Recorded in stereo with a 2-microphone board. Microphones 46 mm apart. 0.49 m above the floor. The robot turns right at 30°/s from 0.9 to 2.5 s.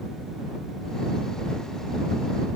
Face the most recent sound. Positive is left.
No sound to turn to.